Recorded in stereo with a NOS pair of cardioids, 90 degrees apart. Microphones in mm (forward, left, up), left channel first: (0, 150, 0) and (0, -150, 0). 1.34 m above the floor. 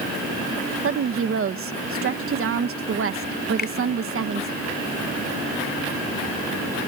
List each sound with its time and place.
0.8 s a woman speaking: 45° right
3.6 s a finger snap: 30° left